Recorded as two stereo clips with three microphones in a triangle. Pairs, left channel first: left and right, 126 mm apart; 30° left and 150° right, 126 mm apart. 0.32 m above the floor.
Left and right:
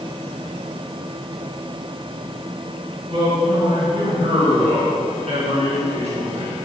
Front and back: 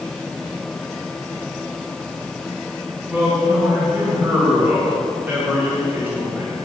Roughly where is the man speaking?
Right.